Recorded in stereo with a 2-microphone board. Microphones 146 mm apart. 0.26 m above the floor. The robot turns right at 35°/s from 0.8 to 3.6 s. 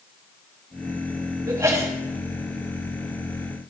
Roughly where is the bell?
I don't hear a bell.